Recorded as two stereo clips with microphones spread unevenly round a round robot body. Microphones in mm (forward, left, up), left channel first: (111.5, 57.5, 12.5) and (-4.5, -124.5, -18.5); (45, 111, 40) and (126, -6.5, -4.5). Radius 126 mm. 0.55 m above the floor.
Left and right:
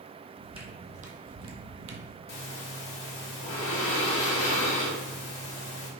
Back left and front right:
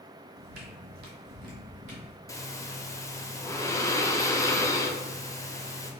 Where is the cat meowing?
No cat meowing in this recording.